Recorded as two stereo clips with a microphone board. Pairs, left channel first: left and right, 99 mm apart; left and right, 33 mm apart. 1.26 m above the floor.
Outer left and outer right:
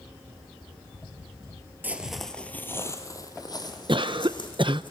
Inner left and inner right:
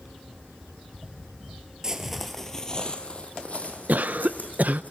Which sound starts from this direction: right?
A cough, at 3.9 s.